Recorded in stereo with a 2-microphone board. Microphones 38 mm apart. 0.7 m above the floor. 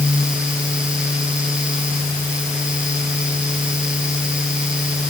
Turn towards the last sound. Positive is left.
No sound to turn to.